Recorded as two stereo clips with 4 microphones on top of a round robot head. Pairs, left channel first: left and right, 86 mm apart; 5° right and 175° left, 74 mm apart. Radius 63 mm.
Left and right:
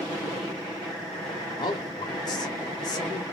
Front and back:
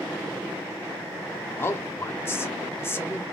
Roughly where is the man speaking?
Ahead left.